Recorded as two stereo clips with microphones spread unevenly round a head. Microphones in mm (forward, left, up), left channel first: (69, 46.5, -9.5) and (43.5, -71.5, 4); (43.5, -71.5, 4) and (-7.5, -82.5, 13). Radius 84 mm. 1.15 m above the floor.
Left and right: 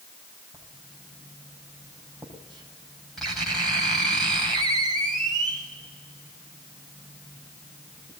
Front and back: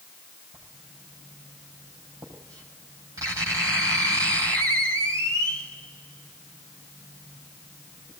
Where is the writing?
165° left, 5.5 m.